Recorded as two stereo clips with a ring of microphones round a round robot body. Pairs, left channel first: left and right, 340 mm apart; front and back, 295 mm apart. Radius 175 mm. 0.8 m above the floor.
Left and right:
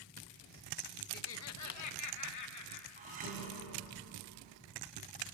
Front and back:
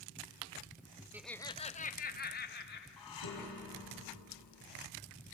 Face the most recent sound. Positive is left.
turn(degrees=-25)